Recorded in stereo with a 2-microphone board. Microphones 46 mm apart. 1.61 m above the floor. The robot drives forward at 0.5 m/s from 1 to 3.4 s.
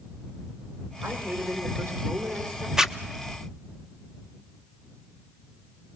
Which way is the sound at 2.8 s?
10° right (ahead or behind).